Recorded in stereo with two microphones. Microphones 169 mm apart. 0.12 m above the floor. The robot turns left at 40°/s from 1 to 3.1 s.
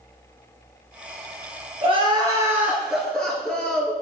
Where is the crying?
135° right, 1.6 m; by 4.0 s 175° left, 1.6 m.